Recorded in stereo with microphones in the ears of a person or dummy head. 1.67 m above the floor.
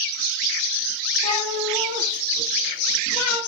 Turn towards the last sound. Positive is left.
turn(degrees=40)  # may be behind; listen again after turning